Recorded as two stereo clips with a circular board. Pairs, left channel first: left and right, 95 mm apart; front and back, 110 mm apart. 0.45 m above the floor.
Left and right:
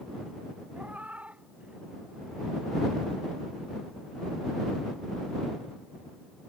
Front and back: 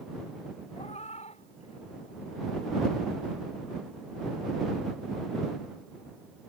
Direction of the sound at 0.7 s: 15° right.